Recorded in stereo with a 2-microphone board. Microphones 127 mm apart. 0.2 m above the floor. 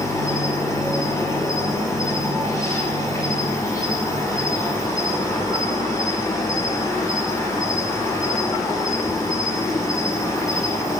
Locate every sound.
0.0 s an insect: 25° left (ahead or behind), 2 m